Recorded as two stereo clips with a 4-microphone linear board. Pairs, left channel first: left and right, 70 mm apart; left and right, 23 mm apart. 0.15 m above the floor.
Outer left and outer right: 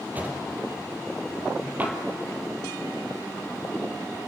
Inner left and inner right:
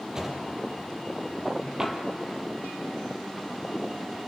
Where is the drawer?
25° right (ahead or behind), 2.5 m.